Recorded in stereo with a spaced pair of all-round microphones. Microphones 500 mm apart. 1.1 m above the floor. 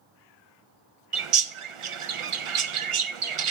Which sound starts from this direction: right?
A bird, at 1.1 s.